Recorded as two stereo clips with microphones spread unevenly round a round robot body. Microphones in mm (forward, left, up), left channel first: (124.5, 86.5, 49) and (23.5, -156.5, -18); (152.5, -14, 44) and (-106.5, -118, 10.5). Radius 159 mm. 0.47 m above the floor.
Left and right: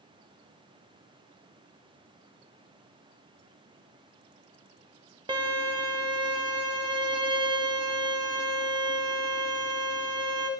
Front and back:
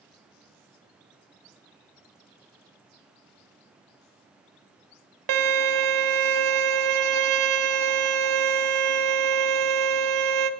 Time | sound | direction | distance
5.3 | a violin | 170° left | 0.8 m